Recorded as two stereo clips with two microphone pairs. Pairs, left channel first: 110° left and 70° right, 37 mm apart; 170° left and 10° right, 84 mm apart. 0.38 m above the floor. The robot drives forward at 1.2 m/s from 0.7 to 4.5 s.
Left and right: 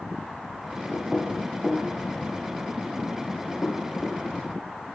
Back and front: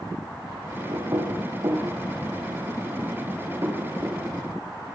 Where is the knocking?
30° left, 8.5 m; by 4.2 s 55° left, 5.5 m.